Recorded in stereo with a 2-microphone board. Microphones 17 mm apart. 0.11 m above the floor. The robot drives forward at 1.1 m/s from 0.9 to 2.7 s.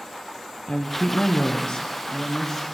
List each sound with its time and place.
0.7 s a woman speaking: 55° left (ahead or behind), 3 m; by 2.6 s 35° left (ahead or behind), 4 m